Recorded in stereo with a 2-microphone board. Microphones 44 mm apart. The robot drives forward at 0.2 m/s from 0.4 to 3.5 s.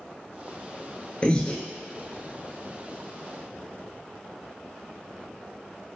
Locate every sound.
1.2 s breathing: 30° left (ahead or behind), 0.8 m